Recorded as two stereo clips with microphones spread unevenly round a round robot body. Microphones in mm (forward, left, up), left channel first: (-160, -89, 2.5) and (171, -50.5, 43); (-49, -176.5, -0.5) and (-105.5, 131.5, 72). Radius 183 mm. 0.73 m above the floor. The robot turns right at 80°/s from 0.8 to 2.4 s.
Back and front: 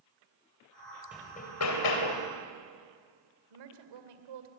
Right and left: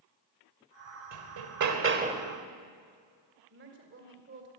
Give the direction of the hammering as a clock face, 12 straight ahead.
9 o'clock.